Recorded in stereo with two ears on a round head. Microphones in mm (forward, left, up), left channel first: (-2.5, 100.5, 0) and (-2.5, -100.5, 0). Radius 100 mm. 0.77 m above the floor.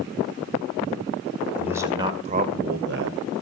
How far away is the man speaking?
About 2.5 m.